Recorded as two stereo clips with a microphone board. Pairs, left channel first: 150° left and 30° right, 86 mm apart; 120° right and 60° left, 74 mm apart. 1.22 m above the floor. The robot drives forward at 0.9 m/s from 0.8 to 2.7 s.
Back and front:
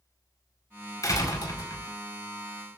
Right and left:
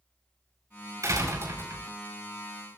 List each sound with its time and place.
1.0 s a door slam: 105° left, 4.5 m; by 1.9 s 110° left, 5 m